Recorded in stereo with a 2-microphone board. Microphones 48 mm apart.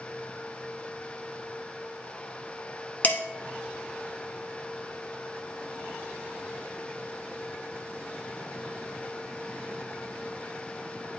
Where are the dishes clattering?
40° left (ahead or behind), 1.0 m.